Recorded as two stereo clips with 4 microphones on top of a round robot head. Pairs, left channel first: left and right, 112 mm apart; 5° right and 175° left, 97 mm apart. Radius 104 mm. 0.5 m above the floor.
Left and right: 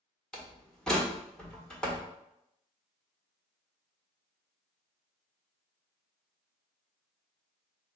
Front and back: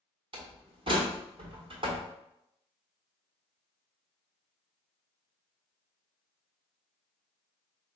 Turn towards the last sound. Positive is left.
turn(degrees=175)